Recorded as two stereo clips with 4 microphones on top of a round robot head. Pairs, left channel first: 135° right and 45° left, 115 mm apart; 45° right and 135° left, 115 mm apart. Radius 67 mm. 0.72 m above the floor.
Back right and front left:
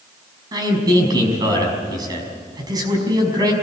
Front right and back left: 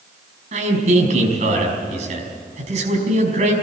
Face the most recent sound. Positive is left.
turn(degrees=100)